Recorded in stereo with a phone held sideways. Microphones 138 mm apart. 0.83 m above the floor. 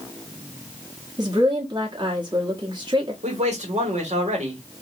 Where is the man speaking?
60° right (ahead or behind), 1.8 m.